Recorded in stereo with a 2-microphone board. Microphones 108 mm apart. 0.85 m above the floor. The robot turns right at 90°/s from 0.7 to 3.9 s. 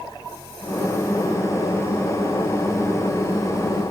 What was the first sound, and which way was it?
Only background noise.